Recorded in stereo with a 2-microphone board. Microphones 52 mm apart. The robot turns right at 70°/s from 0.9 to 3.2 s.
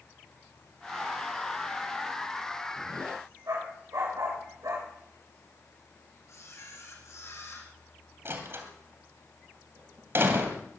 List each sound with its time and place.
3.5 s a dog barking: 80° right, 8.5 m
6.3 s a camera shutter: 65° left (ahead or behind), 4.5 m
8.2 s a door slam: 50° right (ahead or behind), 2.5 m